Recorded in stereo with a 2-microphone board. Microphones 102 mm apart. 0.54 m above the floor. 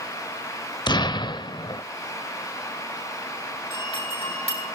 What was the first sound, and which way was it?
An explosion, 45° left (ahead or behind).